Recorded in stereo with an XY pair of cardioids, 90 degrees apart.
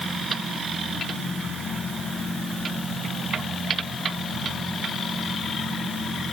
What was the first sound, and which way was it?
Only background noise.